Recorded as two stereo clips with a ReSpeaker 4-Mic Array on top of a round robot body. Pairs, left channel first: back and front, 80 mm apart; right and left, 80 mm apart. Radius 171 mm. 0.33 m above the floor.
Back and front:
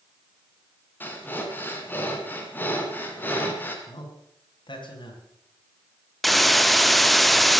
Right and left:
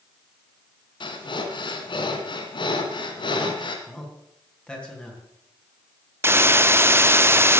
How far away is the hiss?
About 1.1 m.